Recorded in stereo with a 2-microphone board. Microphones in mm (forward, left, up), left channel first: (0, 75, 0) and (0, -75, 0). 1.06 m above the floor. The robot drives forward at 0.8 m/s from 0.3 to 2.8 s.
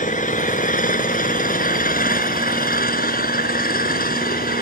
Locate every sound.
0.0 s an engine running: 60° left (ahead or behind); by 4.6 s 75° left (ahead or behind)